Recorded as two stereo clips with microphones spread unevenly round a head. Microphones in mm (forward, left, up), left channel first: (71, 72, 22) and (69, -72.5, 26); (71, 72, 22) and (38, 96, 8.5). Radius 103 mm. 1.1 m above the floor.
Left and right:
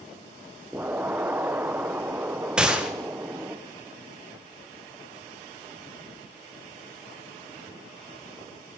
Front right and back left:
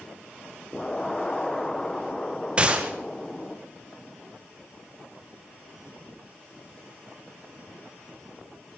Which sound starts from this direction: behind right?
An explosion, at 0.7 s.